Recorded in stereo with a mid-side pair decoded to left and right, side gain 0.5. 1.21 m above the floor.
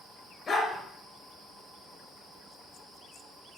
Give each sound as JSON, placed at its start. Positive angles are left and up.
{"t": 0.5, "sound": "a dog barking", "azimuth_deg": 35, "distance_m": 6.0}